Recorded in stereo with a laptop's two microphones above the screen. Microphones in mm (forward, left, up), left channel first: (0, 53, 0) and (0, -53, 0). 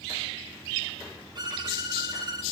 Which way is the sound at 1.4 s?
45° right (ahead or behind).